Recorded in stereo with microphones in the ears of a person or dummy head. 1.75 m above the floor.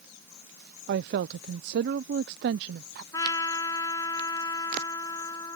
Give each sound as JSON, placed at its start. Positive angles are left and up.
{"t": 0.9, "sound": "a woman speaking", "side_deg": -55}
{"t": 3.1, "sound": "a trumpet", "side_deg": 15}